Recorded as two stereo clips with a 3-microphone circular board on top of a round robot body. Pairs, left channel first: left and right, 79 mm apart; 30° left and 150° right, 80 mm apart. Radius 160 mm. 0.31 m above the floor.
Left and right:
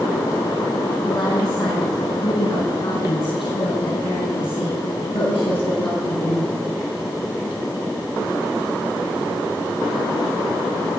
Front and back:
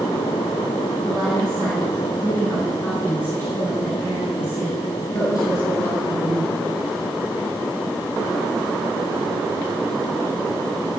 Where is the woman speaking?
115° left, 3.5 m; by 6.5 s 85° left, 7 m.